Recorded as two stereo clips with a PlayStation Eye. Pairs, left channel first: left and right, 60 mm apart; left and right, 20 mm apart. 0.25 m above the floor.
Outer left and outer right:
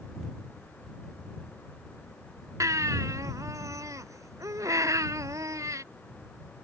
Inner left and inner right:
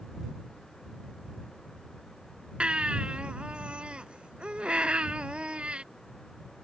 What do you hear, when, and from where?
2.6 s a baby crying: 60° right (ahead or behind)